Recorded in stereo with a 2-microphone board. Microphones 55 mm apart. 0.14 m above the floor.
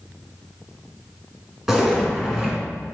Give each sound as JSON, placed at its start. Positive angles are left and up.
{"t": 1.7, "sound": "a zipper", "side_deg": -5, "distance_m": 1.6}